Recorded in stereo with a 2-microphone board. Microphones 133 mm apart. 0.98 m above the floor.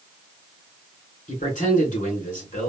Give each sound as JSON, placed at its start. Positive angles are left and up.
{"t": 1.3, "sound": "a man speaking", "side_deg": 70, "distance_m": 2.5}